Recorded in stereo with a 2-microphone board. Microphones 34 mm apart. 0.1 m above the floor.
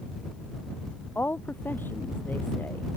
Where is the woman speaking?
70° left (ahead or behind).